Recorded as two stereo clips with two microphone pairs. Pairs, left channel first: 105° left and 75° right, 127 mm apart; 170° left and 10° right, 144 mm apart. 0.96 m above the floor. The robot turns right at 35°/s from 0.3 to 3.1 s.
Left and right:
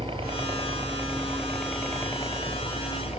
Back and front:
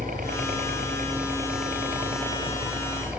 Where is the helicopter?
30° right; by 3.2 s 70° left.